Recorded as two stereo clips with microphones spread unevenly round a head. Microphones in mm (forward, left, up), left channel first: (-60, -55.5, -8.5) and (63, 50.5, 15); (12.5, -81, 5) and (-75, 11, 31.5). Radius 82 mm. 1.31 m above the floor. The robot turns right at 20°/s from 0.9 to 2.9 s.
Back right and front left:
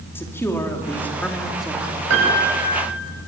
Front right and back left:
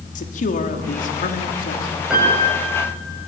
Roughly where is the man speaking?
Ahead right.